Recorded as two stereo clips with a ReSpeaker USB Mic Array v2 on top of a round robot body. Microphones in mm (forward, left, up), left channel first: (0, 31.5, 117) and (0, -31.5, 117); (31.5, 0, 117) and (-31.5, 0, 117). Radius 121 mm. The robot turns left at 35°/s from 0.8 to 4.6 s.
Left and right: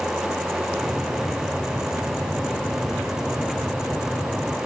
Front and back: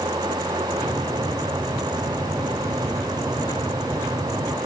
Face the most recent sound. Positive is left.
No sound to turn to.